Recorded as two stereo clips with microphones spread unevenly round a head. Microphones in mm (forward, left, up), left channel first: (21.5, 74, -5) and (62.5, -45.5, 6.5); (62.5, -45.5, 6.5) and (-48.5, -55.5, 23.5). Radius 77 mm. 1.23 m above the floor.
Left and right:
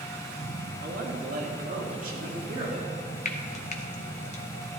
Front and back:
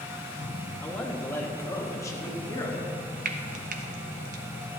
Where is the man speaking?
70° right, 2 m; by 2.9 s 50° right, 3 m.